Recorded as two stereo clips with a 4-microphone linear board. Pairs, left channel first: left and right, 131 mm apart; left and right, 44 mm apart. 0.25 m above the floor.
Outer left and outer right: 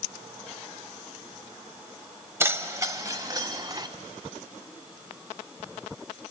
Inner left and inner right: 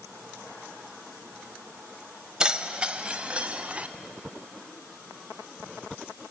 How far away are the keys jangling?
About 0.9 m.